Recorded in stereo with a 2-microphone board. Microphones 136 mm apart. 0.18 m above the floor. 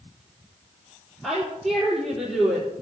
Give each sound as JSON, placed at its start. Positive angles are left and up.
{"t": 1.2, "sound": "a woman speaking", "side_deg": 10, "distance_m": 4.0}